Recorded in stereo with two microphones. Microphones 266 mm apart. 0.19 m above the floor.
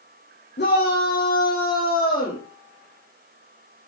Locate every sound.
0.6 s a shout: 40° left (ahead or behind), 9 m; by 2.4 s 30° left (ahead or behind), 8.5 m